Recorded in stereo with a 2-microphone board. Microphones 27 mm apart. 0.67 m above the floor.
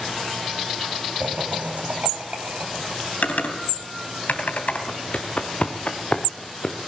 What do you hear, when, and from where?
1.2 s laughter: 75° right (ahead or behind), 4.5 m; by 3.1 s 70° right (ahead or behind), 5.5 m
3.2 s typing on a keyboard: 75° left (ahead or behind), 3 m
4.9 s footsteps: 60° left (ahead or behind), 3 m; by 6.8 s 30° left (ahead or behind), 3.5 m